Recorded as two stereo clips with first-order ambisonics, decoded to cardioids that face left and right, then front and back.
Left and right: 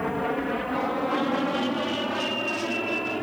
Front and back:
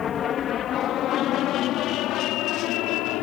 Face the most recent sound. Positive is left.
turn(degrees=-5)